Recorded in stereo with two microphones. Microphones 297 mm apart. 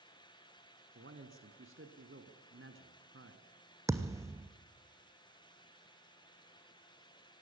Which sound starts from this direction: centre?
A thud, at 3.9 s.